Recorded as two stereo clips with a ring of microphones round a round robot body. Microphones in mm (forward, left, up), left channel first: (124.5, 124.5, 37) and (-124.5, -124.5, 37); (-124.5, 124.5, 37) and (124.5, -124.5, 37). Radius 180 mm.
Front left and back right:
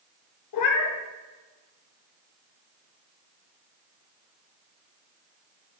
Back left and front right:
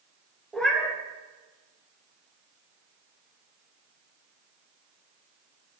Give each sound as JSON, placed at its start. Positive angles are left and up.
{"t": 0.5, "sound": "a cat meowing", "azimuth_deg": 50, "distance_m": 0.8}